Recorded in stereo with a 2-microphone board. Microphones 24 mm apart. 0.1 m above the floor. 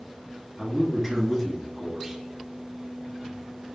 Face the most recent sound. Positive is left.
turn(degrees=-15)  # may be behind; listen again after turning